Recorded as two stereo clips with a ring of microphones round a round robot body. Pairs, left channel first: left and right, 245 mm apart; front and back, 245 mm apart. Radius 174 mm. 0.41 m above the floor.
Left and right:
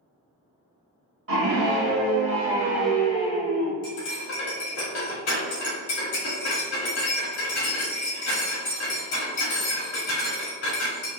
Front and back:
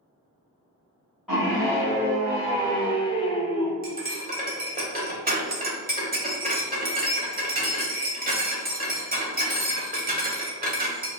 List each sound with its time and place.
1.3 s a scream: 90° right, 1.4 m; by 3.7 s 60° left, 1.1 m
3.8 s cutlery clinking: 125° left, 1.2 m